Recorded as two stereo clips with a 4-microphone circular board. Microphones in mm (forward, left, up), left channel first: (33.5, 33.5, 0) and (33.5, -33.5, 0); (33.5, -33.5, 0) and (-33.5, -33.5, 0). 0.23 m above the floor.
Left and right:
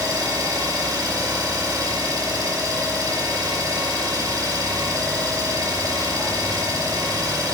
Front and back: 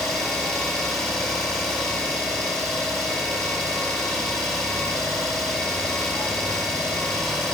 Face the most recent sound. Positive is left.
turn(degrees=-80)